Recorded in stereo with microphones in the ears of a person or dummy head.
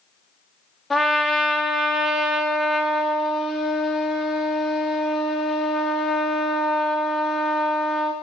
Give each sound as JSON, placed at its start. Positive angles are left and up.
{"t": 0.9, "sound": "a trumpet", "side_deg": 0, "distance_m": 1.0}